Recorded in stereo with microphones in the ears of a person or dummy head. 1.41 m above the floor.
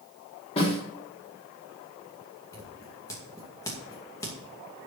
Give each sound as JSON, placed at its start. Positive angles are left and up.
{"t": 0.6, "sound": "a snare drum", "side_deg": 30, "distance_m": 3.0}
{"t": 2.5, "sound": "scissors", "side_deg": 15, "distance_m": 2.5}